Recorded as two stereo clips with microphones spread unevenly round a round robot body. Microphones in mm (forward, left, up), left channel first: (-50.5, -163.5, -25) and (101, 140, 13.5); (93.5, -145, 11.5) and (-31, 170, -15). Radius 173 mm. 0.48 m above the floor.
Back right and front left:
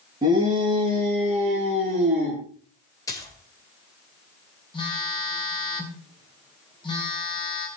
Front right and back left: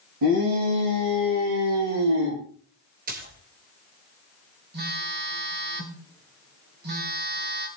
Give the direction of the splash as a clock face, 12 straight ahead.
6 o'clock.